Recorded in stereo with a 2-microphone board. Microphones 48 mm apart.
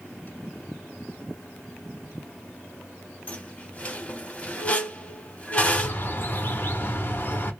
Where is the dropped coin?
No dropped coin in this recording.